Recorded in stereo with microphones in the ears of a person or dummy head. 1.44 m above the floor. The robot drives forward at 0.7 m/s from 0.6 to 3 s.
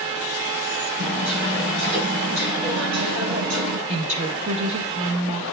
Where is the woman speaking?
35° right (ahead or behind), 1.7 m.